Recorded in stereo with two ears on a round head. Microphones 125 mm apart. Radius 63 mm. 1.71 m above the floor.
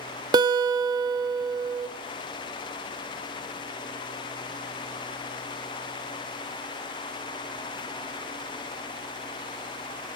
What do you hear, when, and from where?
0.3 s a guitar: 30° right (ahead or behind), 0.5 m